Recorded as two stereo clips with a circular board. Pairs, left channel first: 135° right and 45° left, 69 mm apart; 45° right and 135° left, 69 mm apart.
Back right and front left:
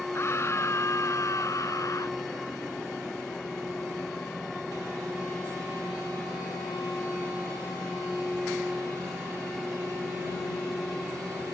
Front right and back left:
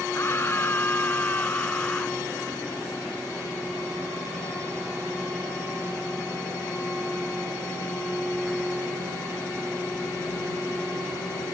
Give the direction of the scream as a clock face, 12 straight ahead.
3 o'clock.